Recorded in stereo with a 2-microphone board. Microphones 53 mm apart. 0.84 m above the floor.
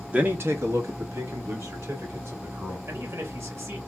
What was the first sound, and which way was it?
A man speaking, 25° right (ahead or behind).